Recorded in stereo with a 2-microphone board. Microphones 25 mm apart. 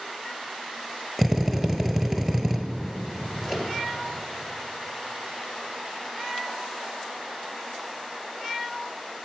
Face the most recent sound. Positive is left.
turn(degrees=15)  # may be behind; listen again after turning